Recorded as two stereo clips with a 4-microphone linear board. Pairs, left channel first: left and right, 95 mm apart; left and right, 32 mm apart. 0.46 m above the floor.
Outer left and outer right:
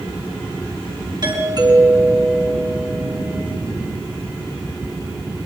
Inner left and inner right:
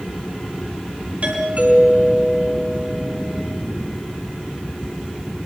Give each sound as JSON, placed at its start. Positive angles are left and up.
{"t": 1.2, "sound": "a doorbell", "side_deg": -50, "distance_m": 6.0}